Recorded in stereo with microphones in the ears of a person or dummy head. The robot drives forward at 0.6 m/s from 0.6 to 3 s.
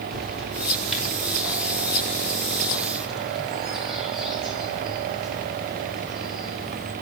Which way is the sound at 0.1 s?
Centre (ahead or behind).